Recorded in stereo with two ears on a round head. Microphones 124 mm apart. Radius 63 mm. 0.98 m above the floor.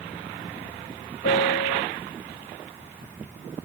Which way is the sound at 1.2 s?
85° left.